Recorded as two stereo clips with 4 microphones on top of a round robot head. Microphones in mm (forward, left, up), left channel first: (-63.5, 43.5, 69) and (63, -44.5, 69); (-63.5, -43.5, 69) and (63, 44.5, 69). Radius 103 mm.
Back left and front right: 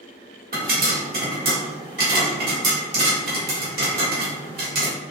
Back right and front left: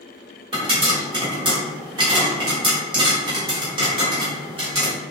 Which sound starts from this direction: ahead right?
A pop, at 0.5 s.